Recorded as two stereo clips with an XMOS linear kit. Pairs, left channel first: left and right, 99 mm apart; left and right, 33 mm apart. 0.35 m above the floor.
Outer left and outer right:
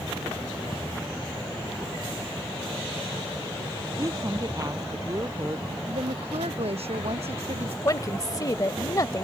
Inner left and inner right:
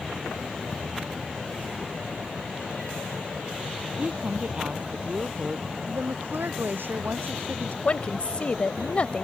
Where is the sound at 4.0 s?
35° right (ahead or behind).